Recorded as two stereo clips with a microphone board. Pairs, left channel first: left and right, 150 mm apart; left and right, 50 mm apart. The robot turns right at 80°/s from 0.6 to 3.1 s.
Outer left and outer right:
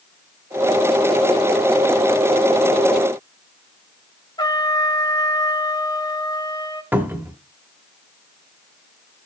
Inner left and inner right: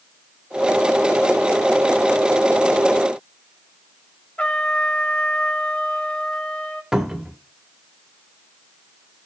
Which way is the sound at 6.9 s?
10° right (ahead or behind).